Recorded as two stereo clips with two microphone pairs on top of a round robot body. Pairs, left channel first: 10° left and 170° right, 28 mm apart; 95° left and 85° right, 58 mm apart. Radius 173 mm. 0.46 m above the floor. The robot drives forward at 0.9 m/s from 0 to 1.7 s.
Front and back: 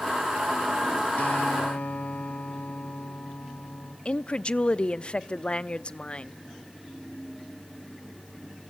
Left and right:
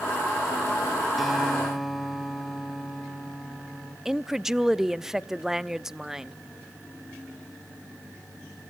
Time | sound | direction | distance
1.2 | a guitar | 5° left | 3.5 m
4.0 | a woman speaking | 15° right | 0.8 m